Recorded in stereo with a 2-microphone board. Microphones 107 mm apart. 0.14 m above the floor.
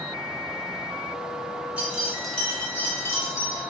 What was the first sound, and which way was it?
Keys jangling, 15° right (ahead or behind).